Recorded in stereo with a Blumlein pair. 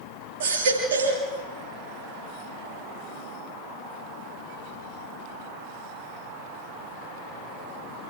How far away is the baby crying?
About 8 m.